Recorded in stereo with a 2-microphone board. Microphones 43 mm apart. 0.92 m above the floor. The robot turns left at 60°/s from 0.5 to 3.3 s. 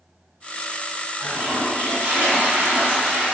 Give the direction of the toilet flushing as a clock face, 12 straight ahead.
1 o'clock.